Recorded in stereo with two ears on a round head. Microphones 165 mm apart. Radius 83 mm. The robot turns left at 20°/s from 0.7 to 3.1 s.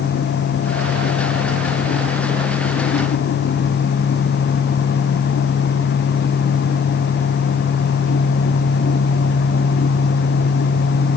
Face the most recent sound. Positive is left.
No sound to turn to.